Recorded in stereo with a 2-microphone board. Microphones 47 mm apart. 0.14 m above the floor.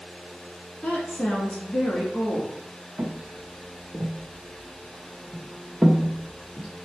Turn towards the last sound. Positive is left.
turn(degrees=5)  # may be behind; listen again after turning